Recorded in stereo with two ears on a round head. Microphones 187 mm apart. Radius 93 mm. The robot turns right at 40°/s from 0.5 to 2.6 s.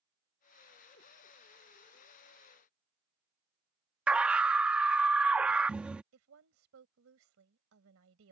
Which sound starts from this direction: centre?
A scream, at 4.1 s.